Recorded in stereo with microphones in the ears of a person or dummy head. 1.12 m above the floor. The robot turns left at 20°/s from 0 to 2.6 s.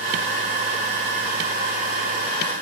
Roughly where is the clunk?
No clunk in this recording.